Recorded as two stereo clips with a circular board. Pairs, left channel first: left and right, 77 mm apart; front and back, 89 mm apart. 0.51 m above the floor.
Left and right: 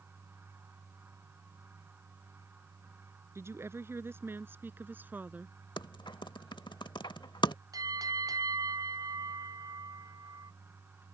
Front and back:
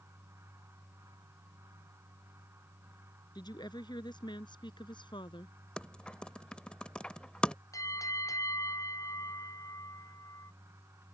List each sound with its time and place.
3.4 s a woman speaking: 35° right; by 5.5 s 20° right
5.8 s typing on a keyboard: 80° left
7.7 s a bell: 50° right